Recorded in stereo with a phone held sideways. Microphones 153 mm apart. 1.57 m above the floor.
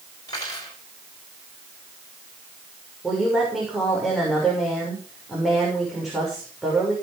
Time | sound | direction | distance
0.3 | cutlery clinking | 25° left (ahead or behind) | 5.5 m
3.0 | a woman speaking | centre (ahead or behind) | 7 m